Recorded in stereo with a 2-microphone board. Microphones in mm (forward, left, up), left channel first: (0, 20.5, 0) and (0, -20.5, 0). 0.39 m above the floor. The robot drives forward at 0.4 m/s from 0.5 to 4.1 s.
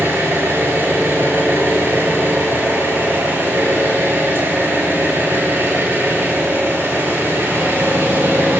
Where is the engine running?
75° right (ahead or behind), 7.5 m; by 8.6 s 65° right (ahead or behind), 8 m.